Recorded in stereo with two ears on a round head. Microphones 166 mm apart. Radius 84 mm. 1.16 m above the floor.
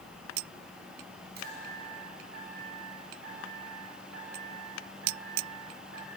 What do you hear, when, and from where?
1.4 s a chime: 60° right (ahead or behind), 9.5 m